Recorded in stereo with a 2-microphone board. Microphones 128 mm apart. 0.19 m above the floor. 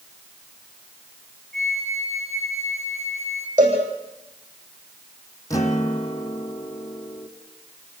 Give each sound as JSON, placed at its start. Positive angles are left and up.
{"t": 1.5, "sound": "a flute", "side_deg": 0, "distance_m": 6.0}
{"t": 3.6, "sound": "a cowbell", "side_deg": -75, "distance_m": 9.0}
{"t": 5.5, "sound": "a guitar", "side_deg": 25, "distance_m": 2.5}